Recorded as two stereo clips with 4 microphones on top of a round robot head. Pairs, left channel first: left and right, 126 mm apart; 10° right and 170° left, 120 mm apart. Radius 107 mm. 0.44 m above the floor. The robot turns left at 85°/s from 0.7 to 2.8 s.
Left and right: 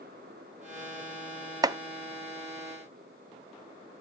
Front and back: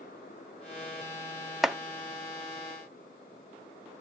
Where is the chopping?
105° right, 0.6 m; by 1.8 s 115° right, 0.6 m.